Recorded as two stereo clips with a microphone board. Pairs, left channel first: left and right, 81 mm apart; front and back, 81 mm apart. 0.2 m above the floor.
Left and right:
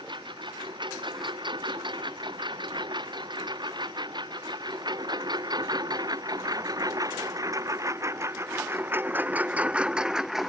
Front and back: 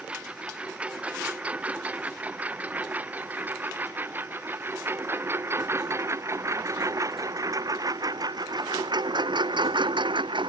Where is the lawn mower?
105° right; by 10.5 s straight behind.